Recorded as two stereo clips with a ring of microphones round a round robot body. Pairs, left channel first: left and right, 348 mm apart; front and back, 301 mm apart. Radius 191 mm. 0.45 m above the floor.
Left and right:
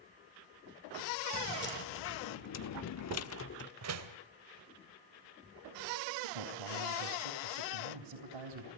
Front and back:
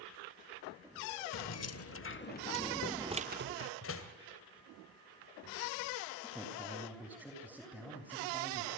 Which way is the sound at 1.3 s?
30° left.